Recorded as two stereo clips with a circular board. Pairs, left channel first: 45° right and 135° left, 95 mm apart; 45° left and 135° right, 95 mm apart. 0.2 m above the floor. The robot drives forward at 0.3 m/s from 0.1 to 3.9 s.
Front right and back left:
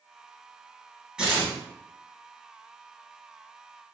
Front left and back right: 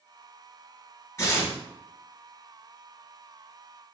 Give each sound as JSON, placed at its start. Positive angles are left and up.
{"t": 1.2, "sound": "tearing paper", "azimuth_deg": 60, "distance_m": 1.9}